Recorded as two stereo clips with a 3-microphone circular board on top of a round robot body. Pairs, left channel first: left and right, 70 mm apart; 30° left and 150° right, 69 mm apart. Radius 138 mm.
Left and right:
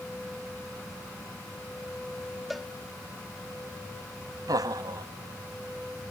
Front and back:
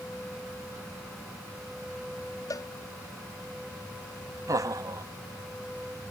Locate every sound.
2.5 s a cowbell: straight ahead
4.5 s laughter: 115° right